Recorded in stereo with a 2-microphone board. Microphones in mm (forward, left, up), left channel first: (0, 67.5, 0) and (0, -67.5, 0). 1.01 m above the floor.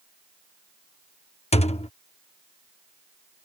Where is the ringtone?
I don't hear a ringtone.